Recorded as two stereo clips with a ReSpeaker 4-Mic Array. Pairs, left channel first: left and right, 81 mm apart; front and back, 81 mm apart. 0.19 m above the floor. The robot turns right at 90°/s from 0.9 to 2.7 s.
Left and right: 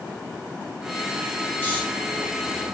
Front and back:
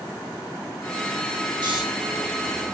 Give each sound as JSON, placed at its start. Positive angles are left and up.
{"t": 1.6, "sound": "snoring", "azimuth_deg": 160, "distance_m": 7.0}